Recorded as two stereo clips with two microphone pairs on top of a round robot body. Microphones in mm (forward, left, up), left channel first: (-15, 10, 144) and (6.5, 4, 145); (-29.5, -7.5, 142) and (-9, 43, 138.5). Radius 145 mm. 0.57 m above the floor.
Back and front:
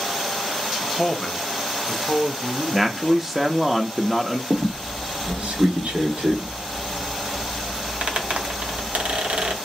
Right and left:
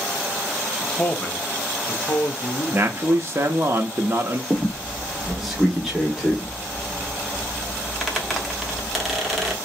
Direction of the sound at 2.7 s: 70° left.